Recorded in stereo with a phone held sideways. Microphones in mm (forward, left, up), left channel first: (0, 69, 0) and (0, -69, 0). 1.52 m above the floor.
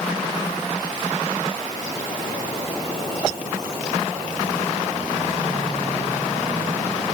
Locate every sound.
Only background noise.